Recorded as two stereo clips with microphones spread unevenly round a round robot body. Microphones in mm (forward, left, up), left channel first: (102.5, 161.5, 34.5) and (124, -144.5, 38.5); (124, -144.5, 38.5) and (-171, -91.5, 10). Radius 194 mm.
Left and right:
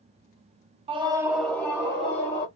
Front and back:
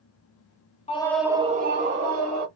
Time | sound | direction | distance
0.9 | a scream | 55° right | 0.6 m